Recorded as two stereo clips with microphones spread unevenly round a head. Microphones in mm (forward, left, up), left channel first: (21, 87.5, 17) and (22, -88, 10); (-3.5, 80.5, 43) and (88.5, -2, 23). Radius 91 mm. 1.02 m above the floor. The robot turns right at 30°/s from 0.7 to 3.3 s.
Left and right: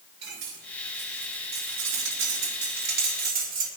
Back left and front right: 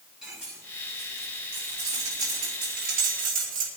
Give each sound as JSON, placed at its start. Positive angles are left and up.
{"t": 0.2, "sound": "cutlery clinking", "azimuth_deg": -125, "distance_m": 4.0}